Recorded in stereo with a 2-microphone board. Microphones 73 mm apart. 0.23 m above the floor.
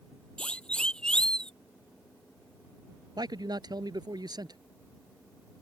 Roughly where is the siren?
Centre.